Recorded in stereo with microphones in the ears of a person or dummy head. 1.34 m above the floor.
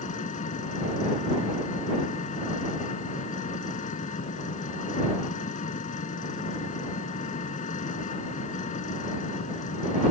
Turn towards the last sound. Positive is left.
turn(degrees=45)  # may be behind; listen again after turning